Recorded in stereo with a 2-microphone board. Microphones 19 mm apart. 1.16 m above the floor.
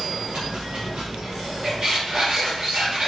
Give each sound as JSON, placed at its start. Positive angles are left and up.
{"t": 0.0, "sound": "running water", "side_deg": -80, "distance_m": 1.5}
{"t": 1.6, "sound": "a squeak", "side_deg": -60, "distance_m": 1.8}